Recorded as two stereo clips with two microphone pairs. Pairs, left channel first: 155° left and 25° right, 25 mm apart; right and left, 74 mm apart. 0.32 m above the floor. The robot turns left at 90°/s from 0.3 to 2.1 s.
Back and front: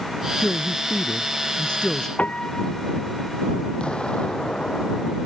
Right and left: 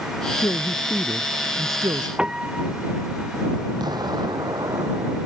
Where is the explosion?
110° left.